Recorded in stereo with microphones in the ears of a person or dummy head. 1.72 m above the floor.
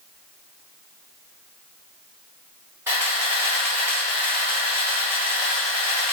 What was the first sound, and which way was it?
A camera shutter, 15° right (ahead or behind).